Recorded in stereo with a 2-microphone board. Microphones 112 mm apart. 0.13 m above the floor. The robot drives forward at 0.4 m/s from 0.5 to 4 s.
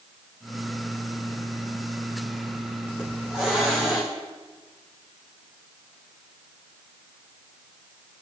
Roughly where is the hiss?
Centre.